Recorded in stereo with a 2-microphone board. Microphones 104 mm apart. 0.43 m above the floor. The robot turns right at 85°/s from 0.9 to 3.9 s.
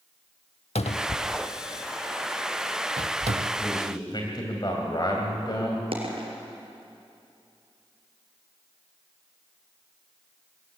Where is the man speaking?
20° left (ahead or behind), 3 m; by 5.8 s 45° left (ahead or behind), 3 m.